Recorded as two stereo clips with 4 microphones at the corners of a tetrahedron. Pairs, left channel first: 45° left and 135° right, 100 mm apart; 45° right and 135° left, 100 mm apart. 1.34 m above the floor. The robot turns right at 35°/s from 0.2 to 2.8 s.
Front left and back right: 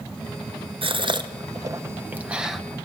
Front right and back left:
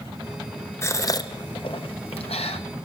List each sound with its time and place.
0.8 s a gasp: 110° right, 0.7 m; by 2.6 s 45° right, 0.7 m